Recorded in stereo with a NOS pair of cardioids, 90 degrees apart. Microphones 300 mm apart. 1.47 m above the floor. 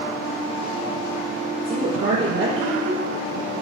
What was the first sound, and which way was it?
A woman speaking, 40° right.